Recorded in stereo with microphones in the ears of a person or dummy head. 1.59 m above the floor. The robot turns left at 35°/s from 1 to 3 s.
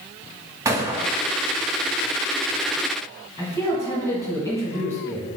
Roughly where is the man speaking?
Centre.